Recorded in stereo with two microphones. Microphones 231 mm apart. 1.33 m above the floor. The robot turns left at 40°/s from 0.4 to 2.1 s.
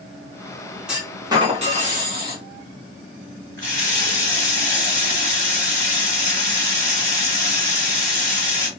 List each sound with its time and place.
0.9 s a clunk: 5° right, 1.3 m; by 2.4 s 55° right, 1.3 m
3.6 s a running tap: 50° right (ahead or behind), 2.0 m